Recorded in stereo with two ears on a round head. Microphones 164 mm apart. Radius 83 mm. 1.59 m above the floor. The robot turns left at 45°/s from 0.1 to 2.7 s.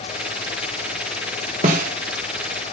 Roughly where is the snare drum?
Right.